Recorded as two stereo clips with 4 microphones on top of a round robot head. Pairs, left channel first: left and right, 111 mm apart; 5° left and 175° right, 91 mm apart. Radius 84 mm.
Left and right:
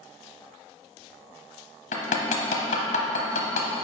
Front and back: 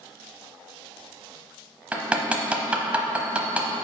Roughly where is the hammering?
Left.